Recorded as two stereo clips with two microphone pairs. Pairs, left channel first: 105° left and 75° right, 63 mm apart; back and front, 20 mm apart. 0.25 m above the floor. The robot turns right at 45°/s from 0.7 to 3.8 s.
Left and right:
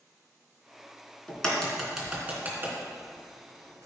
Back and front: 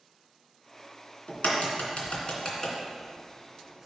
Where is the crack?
175° left, 2.5 m; by 3.9 s 70° right, 2.5 m.